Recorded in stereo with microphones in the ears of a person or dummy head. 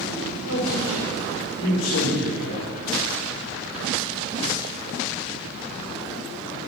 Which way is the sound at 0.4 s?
75° left (ahead or behind).